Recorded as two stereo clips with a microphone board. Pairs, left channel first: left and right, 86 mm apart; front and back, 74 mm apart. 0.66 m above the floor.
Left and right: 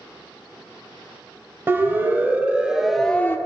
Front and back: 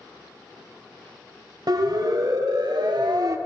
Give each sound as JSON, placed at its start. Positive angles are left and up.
{"t": 1.7, "sound": "a siren", "azimuth_deg": -155, "distance_m": 2.5}